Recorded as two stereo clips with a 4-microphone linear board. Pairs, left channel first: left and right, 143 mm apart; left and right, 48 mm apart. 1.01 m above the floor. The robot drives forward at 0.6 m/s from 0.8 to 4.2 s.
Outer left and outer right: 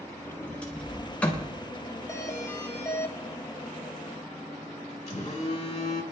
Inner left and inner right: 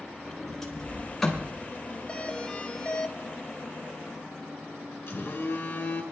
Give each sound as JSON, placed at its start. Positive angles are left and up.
{"t": 0.2, "sound": "a sliding door", "side_deg": 10, "distance_m": 3.5}
{"t": 2.1, "sound": "a doorbell", "side_deg": 20, "distance_m": 1.2}
{"t": 5.1, "sound": "a phone buzzing", "side_deg": 50, "distance_m": 3.0}